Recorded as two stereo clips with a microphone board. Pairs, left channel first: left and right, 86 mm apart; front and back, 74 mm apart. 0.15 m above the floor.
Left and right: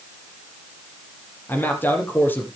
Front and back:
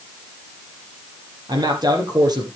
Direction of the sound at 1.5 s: 155° left.